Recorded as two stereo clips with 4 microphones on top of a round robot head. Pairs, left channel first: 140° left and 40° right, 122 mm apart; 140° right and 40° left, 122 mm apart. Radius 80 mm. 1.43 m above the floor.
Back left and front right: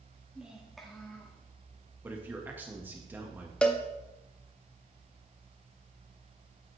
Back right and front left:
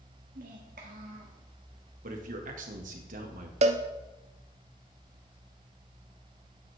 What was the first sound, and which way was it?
A child speaking, 40° left.